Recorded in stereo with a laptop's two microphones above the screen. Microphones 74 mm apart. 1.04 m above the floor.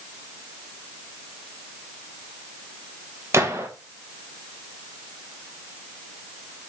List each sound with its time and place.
3.3 s a gunshot: 40° right (ahead or behind), 1.2 m